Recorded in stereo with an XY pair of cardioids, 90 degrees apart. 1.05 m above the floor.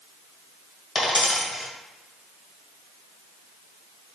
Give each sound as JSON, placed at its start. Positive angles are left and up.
{"t": 0.9, "sound": "a dropped coin", "azimuth_deg": 50, "distance_m": 1.8}